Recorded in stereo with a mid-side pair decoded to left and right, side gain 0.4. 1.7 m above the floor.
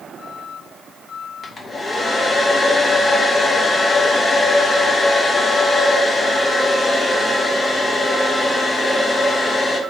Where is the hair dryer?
35° left, 2 m.